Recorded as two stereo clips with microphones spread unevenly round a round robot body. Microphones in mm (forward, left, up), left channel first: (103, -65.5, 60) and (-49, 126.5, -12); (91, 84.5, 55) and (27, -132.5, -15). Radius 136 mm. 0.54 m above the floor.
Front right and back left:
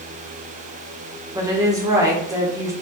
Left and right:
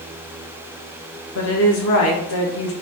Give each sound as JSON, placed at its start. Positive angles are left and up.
{"t": 1.4, "sound": "a woman speaking", "azimuth_deg": 75, "distance_m": 1.6}